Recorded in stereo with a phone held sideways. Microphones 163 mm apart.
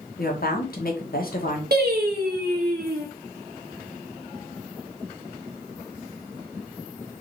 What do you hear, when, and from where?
0.2 s a woman speaking: 65° left (ahead or behind), 1.3 m
1.7 s singing: 75° right (ahead or behind), 1.3 m